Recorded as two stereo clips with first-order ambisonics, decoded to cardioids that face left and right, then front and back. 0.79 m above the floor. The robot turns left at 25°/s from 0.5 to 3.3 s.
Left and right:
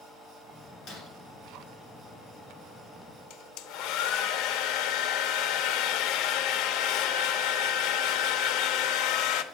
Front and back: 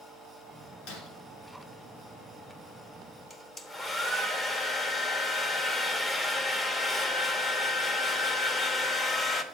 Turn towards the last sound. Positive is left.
turn(degrees=70)